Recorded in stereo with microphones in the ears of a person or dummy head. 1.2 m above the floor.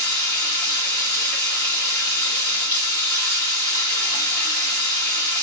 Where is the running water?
20° left (ahead or behind), 1.3 m.